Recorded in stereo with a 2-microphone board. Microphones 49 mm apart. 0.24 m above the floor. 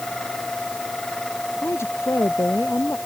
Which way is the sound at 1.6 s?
75° left (ahead or behind).